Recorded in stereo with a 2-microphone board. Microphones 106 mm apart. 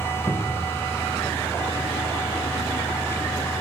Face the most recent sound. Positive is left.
turn(degrees=25)  # may be behind; listen again after turning